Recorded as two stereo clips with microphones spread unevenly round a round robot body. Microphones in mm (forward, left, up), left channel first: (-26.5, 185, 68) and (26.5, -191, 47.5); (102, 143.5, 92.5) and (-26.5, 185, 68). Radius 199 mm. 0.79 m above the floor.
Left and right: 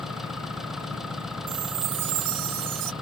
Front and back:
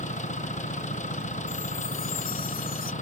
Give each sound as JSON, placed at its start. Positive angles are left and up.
{"t": 0.0, "sound": "an engine running", "azimuth_deg": 5}
{"t": 1.5, "sound": "a chime", "azimuth_deg": -55}